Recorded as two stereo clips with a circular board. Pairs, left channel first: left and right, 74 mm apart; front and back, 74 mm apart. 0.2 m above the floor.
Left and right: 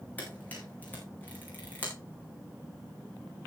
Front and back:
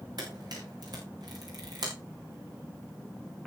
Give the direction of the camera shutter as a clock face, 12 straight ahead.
7 o'clock.